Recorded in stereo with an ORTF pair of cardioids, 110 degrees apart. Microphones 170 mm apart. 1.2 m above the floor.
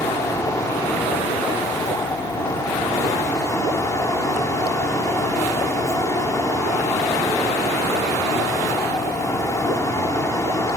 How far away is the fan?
About 3.5 m.